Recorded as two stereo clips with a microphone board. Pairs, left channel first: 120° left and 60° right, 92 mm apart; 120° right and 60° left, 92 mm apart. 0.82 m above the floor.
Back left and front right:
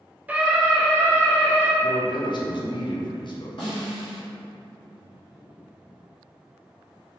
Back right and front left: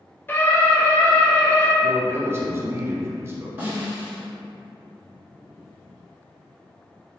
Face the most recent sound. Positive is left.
turn(degrees=125)